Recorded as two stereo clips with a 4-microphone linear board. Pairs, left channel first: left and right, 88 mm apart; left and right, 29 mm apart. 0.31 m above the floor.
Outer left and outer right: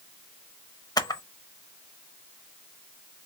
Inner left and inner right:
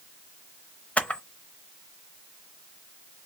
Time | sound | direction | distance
1.0 | a camera shutter | 50° left (ahead or behind) | 0.6 m